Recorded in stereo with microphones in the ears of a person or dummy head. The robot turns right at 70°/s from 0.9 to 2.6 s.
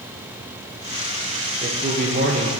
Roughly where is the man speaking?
Behind right.